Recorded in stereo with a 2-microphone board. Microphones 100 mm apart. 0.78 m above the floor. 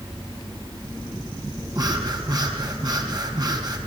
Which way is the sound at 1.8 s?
45° right (ahead or behind).